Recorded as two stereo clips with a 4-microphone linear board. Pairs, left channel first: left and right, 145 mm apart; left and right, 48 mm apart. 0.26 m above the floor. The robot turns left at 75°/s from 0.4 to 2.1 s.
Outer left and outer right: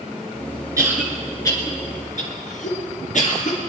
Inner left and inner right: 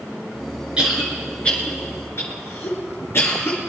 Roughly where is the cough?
Right.